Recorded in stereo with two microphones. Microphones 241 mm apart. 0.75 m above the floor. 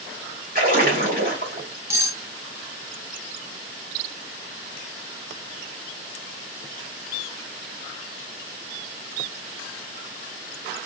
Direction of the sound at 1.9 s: 10° right (ahead or behind).